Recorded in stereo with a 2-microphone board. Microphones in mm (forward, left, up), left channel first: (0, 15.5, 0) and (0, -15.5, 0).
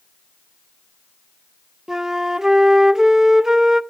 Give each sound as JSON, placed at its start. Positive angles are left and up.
{"t": 1.9, "sound": "a flute", "side_deg": -15, "distance_m": 0.5}